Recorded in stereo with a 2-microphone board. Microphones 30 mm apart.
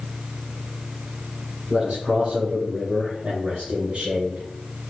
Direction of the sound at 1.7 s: 40° right (ahead or behind).